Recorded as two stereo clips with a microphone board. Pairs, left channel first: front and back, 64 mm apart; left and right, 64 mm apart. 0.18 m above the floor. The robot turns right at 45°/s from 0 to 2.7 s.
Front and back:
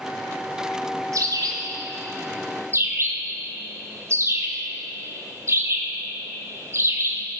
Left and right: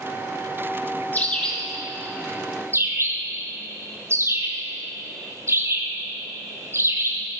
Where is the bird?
155° left, 2 m; by 7.2 s 135° right, 2 m.